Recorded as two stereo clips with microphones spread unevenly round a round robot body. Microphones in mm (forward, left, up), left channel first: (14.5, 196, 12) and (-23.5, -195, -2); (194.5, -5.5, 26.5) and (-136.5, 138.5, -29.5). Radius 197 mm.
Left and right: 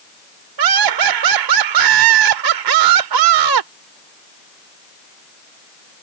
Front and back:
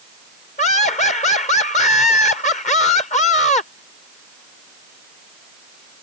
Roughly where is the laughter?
Right.